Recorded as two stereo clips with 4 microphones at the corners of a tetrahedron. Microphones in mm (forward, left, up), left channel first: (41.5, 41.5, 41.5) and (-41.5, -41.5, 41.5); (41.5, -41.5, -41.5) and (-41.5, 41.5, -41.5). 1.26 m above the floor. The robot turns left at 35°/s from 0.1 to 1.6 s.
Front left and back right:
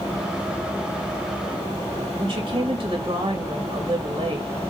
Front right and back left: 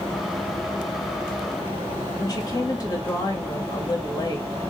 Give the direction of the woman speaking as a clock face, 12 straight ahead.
3 o'clock.